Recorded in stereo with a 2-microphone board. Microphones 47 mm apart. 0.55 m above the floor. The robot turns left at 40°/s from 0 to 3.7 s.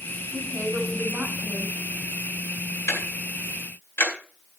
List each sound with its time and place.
0.3 s a woman speaking: 100° right, 4 m; by 1.8 s 160° right, 4 m
2.9 s ticking: 75° left (ahead or behind), 4 m; by 4.1 s 55° left (ahead or behind), 4 m